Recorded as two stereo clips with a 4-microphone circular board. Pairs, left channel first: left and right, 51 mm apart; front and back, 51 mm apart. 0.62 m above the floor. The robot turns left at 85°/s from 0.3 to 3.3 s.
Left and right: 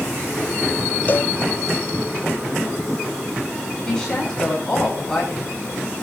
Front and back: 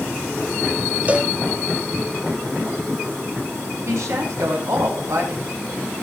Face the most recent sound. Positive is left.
turn(degrees=165)